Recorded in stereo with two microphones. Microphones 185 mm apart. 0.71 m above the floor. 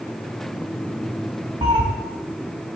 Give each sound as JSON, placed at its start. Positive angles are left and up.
{"t": 1.6, "sound": "a cat meowing", "side_deg": -30, "distance_m": 1.0}